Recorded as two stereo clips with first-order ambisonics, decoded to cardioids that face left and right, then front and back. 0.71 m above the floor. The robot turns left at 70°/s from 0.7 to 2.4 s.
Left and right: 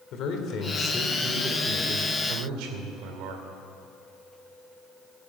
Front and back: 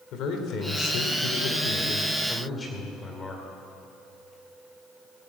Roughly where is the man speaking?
Ahead left.